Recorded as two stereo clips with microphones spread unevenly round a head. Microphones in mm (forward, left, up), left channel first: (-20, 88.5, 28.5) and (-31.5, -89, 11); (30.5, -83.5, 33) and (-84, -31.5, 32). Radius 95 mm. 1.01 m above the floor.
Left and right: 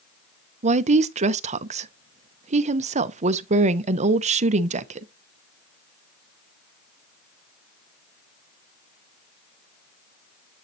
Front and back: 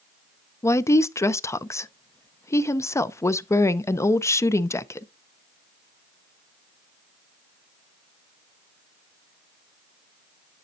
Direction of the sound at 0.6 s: 85° right.